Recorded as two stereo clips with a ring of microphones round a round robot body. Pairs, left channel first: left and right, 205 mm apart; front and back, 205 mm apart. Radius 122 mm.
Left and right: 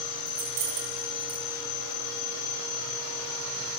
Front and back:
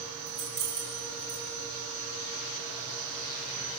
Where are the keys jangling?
115° right, 5.5 m.